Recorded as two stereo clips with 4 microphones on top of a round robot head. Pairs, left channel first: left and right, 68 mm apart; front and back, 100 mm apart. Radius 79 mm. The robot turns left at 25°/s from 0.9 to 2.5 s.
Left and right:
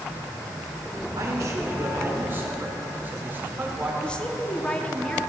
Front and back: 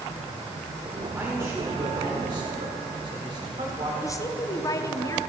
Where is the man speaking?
110° right, 2.5 m; by 3.9 s 145° right, 2.5 m.